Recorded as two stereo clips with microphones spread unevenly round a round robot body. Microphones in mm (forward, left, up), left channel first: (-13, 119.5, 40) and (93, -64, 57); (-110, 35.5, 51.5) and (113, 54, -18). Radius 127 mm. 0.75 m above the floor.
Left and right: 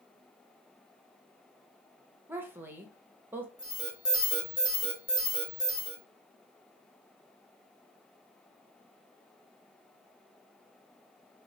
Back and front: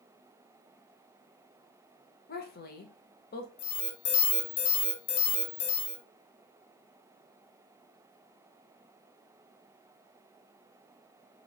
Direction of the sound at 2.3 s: 140° right.